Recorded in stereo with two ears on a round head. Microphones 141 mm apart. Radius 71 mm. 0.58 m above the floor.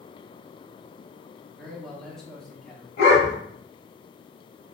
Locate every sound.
1.6 s a man speaking: 5° left (ahead or behind), 0.8 m
3.0 s a dog barking: 70° left (ahead or behind), 1.4 m